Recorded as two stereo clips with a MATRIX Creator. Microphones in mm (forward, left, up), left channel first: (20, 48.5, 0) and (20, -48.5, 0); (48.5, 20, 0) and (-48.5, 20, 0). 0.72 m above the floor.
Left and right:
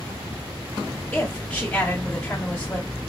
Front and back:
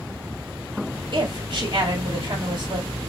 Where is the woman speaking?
165° left, 1.8 m.